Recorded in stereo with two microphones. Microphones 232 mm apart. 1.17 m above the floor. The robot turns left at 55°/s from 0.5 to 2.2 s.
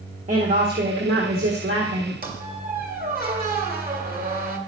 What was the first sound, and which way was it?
A woman speaking, 35° right.